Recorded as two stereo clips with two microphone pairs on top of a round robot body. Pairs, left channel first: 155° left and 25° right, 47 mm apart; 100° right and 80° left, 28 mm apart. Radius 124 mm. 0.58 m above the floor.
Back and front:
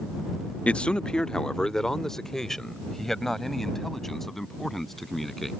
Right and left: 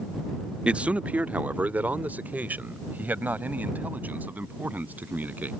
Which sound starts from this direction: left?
A man speaking, at 0.7 s.